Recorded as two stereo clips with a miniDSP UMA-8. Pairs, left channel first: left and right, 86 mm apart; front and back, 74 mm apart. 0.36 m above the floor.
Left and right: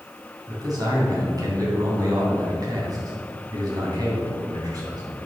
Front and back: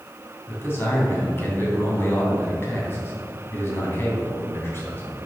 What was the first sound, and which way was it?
A man speaking, 55° right.